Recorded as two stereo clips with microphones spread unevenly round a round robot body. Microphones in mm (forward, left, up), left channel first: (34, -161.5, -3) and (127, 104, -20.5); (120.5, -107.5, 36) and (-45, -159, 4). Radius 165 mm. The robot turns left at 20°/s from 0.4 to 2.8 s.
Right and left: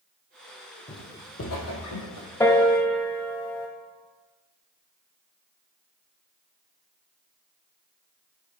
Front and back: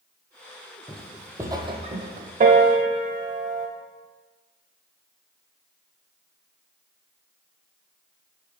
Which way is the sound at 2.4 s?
175° right.